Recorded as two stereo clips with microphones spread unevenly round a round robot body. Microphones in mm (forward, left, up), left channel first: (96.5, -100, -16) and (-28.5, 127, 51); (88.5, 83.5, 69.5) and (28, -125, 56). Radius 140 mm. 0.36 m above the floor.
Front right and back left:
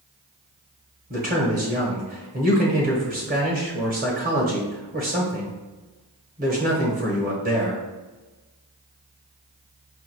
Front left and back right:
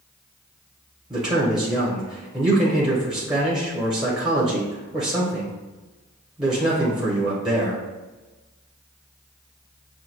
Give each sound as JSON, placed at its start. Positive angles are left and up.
{"t": 1.1, "sound": "a man speaking", "azimuth_deg": 175, "distance_m": 1.1}